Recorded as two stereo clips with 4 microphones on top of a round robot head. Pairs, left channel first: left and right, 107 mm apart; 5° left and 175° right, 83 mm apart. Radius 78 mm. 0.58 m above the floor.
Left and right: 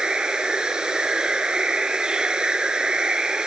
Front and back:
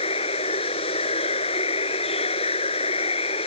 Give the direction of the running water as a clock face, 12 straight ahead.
12 o'clock.